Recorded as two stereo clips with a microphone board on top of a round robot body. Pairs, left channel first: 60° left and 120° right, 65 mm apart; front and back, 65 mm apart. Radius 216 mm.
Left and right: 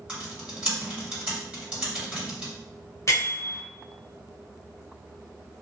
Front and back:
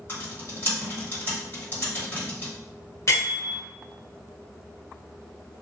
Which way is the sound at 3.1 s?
30° left.